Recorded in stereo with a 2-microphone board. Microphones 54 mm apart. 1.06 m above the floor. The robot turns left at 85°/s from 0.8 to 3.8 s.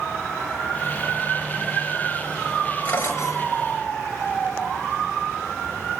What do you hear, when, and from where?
2.9 s a drawer: 155° left, 9 m; by 3.4 s 105° left, 9 m